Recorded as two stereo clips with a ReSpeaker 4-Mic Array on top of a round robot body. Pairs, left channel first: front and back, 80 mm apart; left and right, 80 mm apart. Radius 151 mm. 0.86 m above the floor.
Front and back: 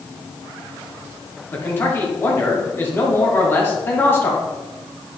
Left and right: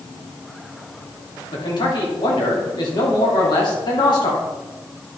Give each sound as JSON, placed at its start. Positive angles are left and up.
{"t": 1.5, "sound": "a man speaking", "azimuth_deg": 65, "distance_m": 2.5}